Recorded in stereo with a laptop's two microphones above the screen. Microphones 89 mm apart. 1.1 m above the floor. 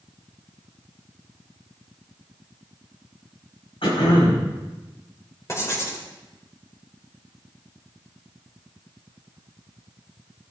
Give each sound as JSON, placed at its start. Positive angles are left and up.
{"t": 3.8, "sound": "throat clearing", "side_deg": 85, "distance_m": 5.0}
{"t": 5.5, "sound": "writing", "side_deg": 30, "distance_m": 3.0}